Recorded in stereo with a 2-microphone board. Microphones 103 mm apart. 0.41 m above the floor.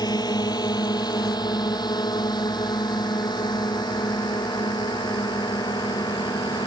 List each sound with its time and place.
0.0 s a drone: 40° left (ahead or behind)